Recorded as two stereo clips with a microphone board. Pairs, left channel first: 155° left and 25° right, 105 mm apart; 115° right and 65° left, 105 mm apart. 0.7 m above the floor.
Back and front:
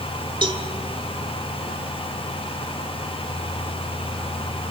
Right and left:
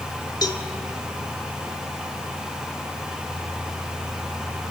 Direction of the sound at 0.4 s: 60° right.